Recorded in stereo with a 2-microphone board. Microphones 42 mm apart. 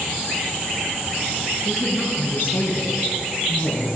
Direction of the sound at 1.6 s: 75° left (ahead or behind).